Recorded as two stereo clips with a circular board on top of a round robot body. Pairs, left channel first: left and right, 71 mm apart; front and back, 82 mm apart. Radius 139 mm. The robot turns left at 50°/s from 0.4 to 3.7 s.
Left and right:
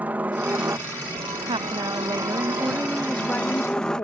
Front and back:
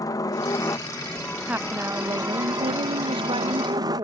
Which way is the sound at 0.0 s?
25° right.